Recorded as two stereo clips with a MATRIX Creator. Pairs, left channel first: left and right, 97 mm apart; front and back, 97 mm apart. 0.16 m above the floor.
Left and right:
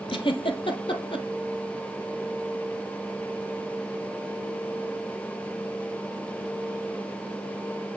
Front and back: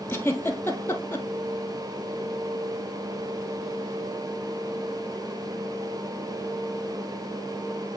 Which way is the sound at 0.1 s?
65° left.